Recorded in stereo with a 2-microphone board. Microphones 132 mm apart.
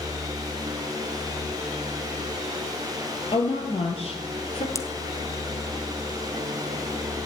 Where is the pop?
25° left (ahead or behind), 1.1 m.